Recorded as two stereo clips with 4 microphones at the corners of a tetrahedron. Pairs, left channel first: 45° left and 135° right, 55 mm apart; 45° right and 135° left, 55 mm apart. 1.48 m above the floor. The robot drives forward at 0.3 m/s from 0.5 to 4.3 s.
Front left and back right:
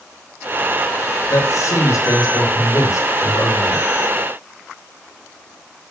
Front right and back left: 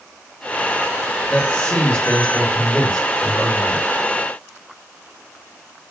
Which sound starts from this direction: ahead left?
A man speaking, at 1.3 s.